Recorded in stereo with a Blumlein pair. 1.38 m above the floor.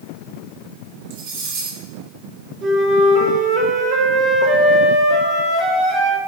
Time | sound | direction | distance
1.1 | cutlery clinking | 50° right | 1.9 m
2.6 | a flute | 30° right | 1.2 m